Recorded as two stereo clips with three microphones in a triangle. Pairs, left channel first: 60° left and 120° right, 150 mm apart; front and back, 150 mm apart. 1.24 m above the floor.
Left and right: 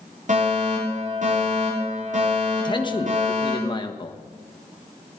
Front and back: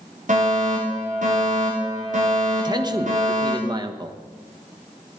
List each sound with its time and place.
0.3 s a fire alarm: 150° right, 5.5 m
2.6 s a man speaking: 115° left, 1.2 m